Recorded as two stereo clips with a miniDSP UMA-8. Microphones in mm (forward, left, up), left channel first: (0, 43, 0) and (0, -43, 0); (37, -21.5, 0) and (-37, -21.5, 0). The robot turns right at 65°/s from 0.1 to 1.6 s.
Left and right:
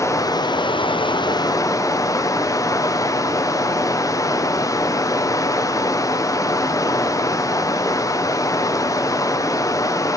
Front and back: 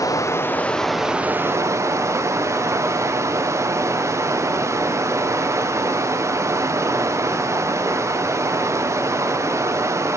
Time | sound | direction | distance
0.0 | running water | 40° left | 0.7 m